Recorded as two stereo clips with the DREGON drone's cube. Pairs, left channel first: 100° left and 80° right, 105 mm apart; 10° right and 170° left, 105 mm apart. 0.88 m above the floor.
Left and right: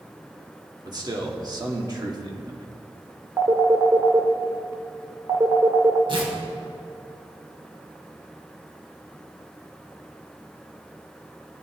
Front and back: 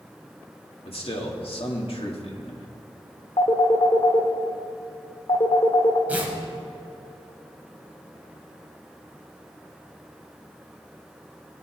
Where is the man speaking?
30° right, 1.8 m.